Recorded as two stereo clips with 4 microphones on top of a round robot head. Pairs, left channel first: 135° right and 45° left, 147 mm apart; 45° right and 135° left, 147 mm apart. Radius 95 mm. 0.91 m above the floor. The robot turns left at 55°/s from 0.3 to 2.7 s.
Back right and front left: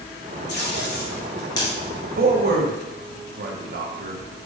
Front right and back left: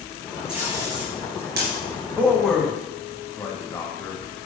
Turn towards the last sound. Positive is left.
turn(degrees=30)